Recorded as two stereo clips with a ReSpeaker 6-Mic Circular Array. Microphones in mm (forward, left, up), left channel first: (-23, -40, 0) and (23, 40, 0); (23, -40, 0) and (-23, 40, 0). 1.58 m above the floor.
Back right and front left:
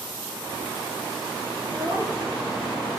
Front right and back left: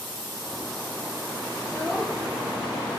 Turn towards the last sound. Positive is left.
turn(degrees=20)